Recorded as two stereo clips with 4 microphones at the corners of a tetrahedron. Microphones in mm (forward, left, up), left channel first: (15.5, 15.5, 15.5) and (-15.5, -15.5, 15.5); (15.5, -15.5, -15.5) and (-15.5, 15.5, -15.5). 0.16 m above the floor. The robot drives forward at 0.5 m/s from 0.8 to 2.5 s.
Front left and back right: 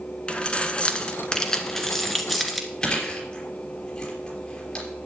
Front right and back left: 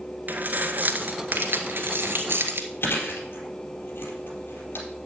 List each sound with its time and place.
0.3 s keys jangling: 105° left, 1.3 m; by 2.7 s 135° left, 1.7 m
2.8 s chewing: 20° right, 3.5 m